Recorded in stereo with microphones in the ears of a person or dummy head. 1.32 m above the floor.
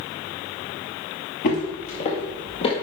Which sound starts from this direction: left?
Footsteps, at 1.4 s.